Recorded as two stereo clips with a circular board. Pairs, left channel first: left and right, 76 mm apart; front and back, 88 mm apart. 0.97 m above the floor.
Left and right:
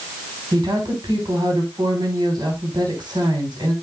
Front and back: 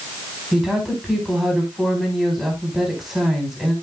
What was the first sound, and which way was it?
A woman speaking, 95° right.